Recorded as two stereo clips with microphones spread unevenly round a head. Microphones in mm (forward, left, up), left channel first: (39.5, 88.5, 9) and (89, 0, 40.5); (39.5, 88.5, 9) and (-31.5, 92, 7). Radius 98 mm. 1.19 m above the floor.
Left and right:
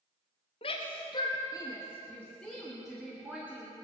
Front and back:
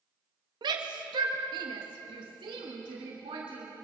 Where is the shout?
165° left, 1.5 m; by 3.7 s 140° right, 2.5 m.